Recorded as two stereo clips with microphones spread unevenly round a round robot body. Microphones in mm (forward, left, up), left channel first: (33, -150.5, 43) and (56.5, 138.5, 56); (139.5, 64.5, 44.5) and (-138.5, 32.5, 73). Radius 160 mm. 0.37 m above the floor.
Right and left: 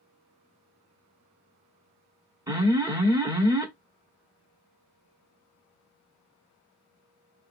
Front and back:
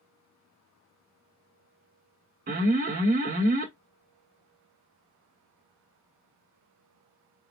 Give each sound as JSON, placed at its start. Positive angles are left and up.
{"t": 2.5, "sound": "an alarm", "azimuth_deg": 160, "distance_m": 1.3}